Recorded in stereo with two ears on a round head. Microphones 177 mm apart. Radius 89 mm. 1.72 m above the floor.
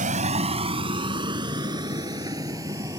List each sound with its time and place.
0.0 s a vehicle: 40° right (ahead or behind); by 3.0 s 20° right (ahead or behind)